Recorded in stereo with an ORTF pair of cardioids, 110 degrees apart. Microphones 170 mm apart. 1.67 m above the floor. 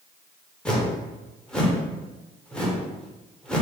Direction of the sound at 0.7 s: 5° left.